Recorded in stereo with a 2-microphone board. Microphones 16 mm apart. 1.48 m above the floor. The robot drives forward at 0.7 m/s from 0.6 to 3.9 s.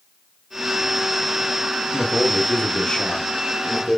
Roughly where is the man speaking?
Left.